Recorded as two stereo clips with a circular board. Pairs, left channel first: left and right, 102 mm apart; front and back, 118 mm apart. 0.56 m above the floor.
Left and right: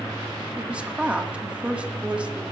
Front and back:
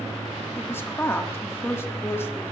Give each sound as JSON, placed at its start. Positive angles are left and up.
{"t": 0.6, "sound": "a woman speaking", "azimuth_deg": -30, "distance_m": 1.1}